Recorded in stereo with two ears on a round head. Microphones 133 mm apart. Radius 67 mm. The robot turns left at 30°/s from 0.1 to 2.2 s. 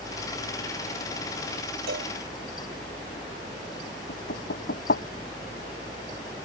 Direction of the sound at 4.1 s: 75° left (ahead or behind).